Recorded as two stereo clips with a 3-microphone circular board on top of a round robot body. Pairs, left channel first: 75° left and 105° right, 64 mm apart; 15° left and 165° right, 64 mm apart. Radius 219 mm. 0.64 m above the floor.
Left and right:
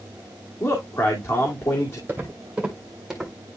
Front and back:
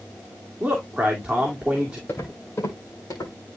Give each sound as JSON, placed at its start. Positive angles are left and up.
{"t": 0.6, "sound": "a man speaking", "azimuth_deg": 115, "distance_m": 2.5}
{"t": 2.1, "sound": "footsteps", "azimuth_deg": -45, "distance_m": 1.9}